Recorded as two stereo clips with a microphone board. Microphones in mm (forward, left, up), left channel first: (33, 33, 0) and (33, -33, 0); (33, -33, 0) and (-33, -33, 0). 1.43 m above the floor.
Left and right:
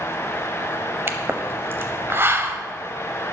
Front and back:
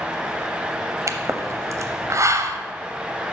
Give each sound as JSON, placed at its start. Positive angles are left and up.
{"t": 1.1, "sound": "a pop", "azimuth_deg": -140, "distance_m": 0.6}